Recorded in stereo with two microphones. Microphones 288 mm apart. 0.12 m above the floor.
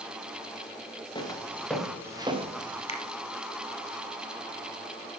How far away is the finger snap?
About 1.0 m.